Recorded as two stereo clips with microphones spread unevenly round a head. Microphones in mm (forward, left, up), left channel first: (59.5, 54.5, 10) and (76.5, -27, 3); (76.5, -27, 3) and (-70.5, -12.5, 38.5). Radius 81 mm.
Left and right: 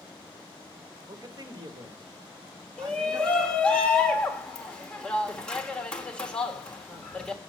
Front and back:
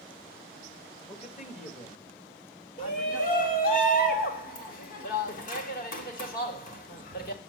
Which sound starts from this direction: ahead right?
A man speaking, at 1.1 s.